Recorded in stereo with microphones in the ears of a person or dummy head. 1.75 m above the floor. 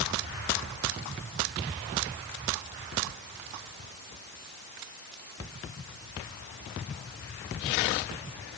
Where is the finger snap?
I don't hear a finger snap.